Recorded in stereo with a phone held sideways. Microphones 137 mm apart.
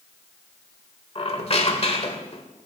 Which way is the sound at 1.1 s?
45° left (ahead or behind).